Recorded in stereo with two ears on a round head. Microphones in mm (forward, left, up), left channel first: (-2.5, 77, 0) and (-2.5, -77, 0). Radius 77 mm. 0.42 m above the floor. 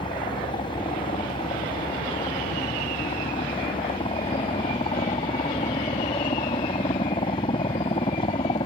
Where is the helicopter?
30° left (ahead or behind).